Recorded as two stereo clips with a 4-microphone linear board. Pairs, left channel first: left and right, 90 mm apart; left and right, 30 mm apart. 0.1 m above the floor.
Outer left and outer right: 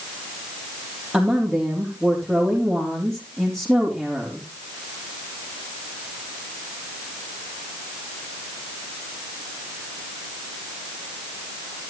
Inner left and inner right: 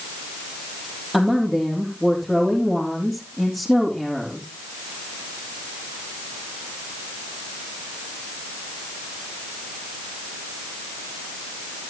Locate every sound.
1.1 s a woman speaking: 5° right (ahead or behind), 4 m